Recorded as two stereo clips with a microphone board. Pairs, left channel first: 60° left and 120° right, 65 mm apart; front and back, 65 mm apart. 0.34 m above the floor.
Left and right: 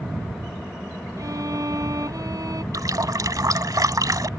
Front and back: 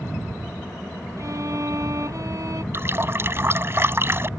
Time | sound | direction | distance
1.2 | a violin | 145° right | ?
2.7 | a running tap | 130° right | ?